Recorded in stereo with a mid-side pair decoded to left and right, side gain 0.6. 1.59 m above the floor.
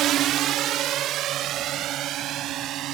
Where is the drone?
60° right.